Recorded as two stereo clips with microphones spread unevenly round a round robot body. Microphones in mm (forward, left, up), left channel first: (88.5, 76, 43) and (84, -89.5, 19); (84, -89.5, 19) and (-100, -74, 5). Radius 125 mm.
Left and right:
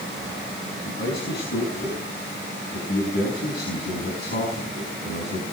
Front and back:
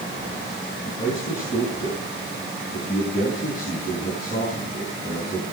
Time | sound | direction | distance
0.8 | a man speaking | 60° left | 5 m